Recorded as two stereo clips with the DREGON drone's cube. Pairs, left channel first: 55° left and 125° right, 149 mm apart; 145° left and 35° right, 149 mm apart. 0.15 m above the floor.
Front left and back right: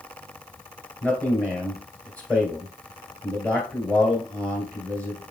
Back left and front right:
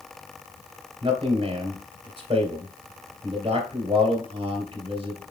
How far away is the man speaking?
About 2 m.